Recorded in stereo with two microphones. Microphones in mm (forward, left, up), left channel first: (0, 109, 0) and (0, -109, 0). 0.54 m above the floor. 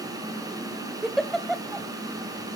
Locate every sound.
1.0 s a giggle: centre (ahead or behind), 0.6 m